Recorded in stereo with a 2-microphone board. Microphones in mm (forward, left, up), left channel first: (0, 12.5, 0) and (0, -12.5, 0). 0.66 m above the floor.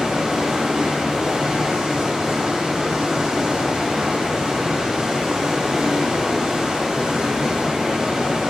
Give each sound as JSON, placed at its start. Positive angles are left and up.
{"t": 0.0, "sound": "running water", "side_deg": -20, "distance_m": 3.0}